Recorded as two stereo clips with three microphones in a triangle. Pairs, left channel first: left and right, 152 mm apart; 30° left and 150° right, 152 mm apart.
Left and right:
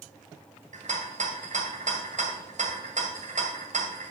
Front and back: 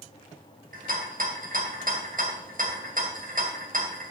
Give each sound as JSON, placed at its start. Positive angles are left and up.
{"t": 0.7, "sound": "a rattle", "azimuth_deg": -125, "distance_m": 2.0}